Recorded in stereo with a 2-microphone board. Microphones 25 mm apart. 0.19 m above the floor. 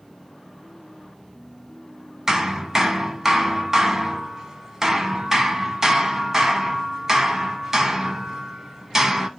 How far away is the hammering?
About 0.9 m.